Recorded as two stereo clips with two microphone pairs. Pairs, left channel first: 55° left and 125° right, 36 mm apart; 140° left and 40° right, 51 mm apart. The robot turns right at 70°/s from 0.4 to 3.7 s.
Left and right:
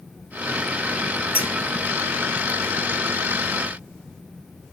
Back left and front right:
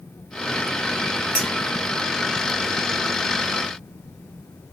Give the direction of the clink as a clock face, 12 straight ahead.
5 o'clock.